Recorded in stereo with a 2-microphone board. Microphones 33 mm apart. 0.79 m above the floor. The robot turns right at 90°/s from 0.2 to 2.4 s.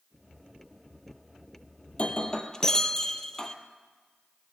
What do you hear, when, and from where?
1.9 s breaking glass: 105° left, 1.1 m; by 3.5 s 150° left, 1.1 m